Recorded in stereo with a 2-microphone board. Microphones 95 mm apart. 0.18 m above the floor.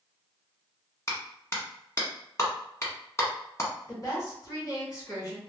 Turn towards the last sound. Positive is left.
turn(degrees=40)  # may be behind; listen again after turning